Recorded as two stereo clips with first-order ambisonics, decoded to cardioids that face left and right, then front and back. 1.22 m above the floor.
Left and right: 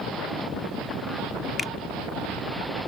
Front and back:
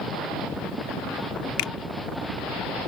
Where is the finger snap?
15° left.